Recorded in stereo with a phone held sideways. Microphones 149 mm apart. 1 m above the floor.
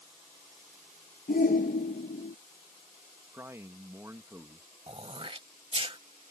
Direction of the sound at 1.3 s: 75° left (ahead or behind).